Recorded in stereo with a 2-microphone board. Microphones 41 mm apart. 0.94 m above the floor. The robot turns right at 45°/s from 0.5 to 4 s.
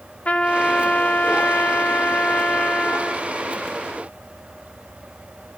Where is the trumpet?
40° left, 2.5 m; by 3.3 s 165° left, 2.5 m.